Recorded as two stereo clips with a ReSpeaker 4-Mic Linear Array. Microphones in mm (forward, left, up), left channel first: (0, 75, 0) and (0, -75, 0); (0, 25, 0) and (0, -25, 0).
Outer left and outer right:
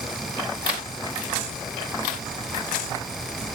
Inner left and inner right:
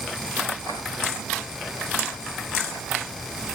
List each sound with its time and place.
Only background noise.